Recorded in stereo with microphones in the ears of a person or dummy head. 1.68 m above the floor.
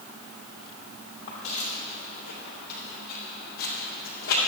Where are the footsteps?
35° left (ahead or behind), 3 m; by 4.4 s 65° left (ahead or behind), 3.5 m.